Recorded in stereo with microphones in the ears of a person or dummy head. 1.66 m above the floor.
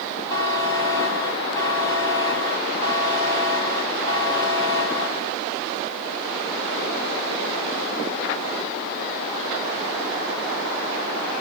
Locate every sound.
0.3 s a buzzer: 25° left (ahead or behind), 1.5 m